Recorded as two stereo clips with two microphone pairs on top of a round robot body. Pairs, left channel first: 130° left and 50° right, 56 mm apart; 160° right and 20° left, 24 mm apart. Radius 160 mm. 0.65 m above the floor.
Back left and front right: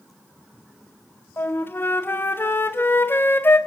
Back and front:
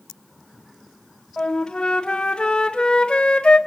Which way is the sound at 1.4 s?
Straight behind.